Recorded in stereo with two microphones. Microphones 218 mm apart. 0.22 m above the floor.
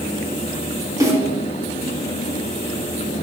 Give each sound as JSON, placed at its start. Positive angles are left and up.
{"t": 1.0, "sound": "a snare drum", "side_deg": -15, "distance_m": 2.0}